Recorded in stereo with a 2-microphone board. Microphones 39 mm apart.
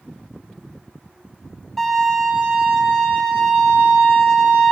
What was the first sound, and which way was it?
A violin, 10° left (ahead or behind).